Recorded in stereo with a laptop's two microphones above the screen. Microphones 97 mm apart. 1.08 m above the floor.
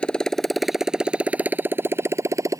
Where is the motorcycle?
10° left (ahead or behind); by 2.6 s 30° right (ahead or behind).